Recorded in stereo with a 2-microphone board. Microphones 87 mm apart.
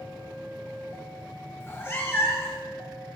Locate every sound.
1.6 s a cat meowing: 30° left (ahead or behind), 1.0 m